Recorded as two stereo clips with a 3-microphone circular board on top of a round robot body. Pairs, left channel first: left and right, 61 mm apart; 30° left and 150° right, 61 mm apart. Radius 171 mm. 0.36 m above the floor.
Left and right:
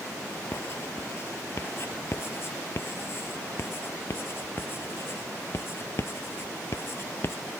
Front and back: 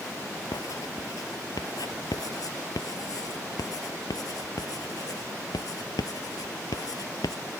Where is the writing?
40° left.